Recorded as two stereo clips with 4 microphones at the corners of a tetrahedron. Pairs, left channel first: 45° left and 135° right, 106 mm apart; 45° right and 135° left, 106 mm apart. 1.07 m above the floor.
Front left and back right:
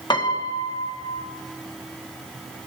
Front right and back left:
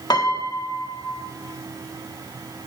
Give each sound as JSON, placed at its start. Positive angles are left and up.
{"t": 0.1, "sound": "a piano", "azimuth_deg": 5, "distance_m": 1.4}